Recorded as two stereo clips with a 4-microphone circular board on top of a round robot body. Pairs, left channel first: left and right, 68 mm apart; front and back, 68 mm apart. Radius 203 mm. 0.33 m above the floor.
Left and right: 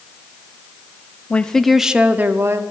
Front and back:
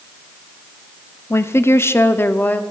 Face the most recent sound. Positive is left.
turn(degrees=-60)